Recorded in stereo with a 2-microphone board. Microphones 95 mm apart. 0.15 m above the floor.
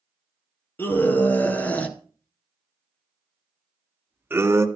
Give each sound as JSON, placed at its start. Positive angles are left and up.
{"t": 0.8, "sound": "a scream", "side_deg": 20, "distance_m": 3.5}